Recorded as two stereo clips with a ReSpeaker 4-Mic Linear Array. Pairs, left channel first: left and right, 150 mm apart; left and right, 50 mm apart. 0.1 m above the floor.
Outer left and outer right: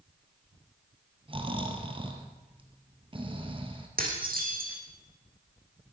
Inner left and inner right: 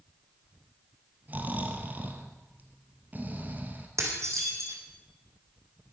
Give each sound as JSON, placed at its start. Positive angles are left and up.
{"t": 1.3, "sound": "snoring", "side_deg": -35, "distance_m": 1.7}
{"t": 4.0, "sound": "dishes clattering", "side_deg": -75, "distance_m": 3.5}